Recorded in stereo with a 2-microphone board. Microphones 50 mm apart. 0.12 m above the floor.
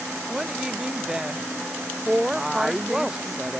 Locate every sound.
0.3 s a woman speaking: 10° right (ahead or behind)
2.4 s a woman speaking: 5° right (ahead or behind)